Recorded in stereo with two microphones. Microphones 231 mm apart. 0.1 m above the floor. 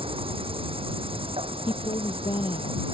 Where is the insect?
25° right (ahead or behind).